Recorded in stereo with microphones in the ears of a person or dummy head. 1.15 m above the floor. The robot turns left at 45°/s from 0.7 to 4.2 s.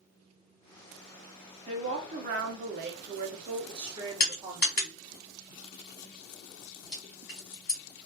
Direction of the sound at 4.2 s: 50° left (ahead or behind).